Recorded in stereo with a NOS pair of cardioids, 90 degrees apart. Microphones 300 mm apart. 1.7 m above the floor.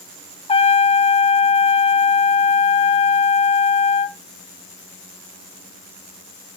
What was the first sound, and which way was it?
A trumpet, 20° left.